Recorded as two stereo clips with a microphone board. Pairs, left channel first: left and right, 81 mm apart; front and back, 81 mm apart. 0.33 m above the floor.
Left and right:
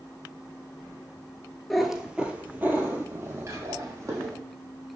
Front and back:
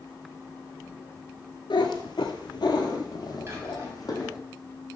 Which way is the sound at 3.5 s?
130° right.